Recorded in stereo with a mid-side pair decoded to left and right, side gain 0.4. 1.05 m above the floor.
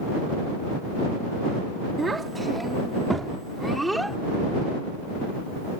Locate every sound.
2.0 s a child speaking: 30° right; by 4.2 s 10° right